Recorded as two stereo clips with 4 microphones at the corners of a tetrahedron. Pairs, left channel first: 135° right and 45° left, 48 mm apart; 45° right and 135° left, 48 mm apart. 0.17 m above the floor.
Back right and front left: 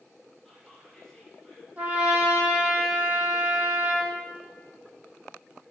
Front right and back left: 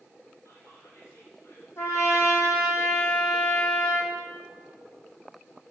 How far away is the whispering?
About 4 m.